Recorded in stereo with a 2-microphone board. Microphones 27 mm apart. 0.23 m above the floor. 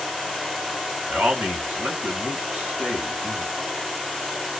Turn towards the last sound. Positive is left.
turn(degrees=-60)  # may be behind; listen again after turning